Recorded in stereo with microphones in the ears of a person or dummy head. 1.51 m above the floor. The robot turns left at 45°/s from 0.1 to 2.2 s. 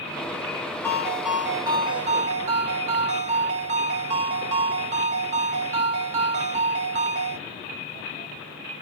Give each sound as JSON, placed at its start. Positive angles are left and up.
{"t": 0.8, "sound": "a ringtone", "azimuth_deg": 15, "distance_m": 1.2}